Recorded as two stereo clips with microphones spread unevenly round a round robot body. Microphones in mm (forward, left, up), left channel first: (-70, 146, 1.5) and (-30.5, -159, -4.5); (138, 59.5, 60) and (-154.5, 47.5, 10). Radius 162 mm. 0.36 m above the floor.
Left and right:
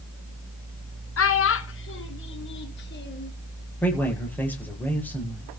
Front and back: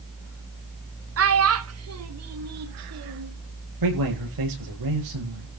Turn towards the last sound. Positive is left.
turn(degrees=180)